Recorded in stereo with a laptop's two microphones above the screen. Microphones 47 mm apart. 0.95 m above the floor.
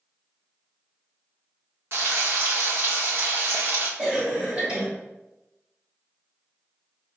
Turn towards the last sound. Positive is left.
turn(degrees=-20)  # may be behind; listen again after turning